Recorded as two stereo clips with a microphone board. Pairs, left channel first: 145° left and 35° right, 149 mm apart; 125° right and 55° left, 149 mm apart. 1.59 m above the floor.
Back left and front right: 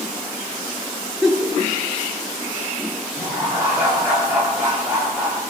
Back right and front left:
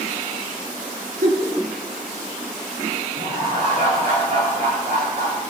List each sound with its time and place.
1.2 s a giggle: 50° left, 2 m
3.1 s laughter: 40° left, 3.5 m